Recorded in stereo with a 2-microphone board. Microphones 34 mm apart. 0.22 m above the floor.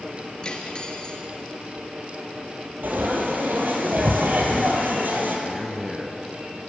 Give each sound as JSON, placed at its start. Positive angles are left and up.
{"t": 0.4, "sound": "cutlery clinking", "side_deg": 30, "distance_m": 2.0}
{"t": 2.8, "sound": "frying", "side_deg": -70, "distance_m": 3.5}
{"t": 5.5, "sound": "a man speaking", "side_deg": -10, "distance_m": 2.5}